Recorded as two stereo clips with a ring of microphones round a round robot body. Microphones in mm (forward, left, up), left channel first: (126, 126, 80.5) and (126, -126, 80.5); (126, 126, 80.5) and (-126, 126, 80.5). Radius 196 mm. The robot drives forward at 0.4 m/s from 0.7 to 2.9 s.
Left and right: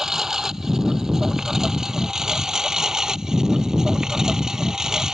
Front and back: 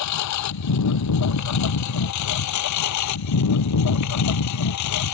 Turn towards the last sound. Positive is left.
turn(degrees=0)